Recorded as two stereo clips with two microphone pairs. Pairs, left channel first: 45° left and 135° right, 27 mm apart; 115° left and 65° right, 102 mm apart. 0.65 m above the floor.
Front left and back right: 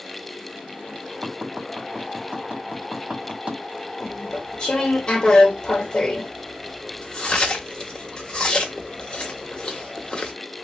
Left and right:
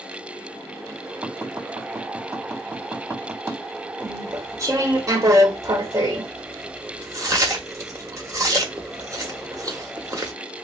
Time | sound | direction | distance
1.2 | tapping | 115° right | 1.8 m
4.0 | chewing | 5° right | 0.9 m